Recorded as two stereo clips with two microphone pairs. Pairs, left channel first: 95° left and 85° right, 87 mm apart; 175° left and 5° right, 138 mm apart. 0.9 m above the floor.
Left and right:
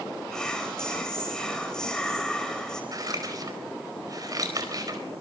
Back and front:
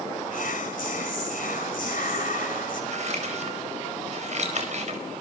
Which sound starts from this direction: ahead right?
Scissors, at 2.9 s.